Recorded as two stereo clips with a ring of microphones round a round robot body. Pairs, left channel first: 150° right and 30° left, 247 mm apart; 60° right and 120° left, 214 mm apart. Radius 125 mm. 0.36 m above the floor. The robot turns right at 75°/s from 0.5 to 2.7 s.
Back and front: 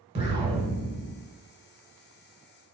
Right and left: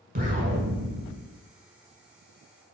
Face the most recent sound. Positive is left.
turn(degrees=-105)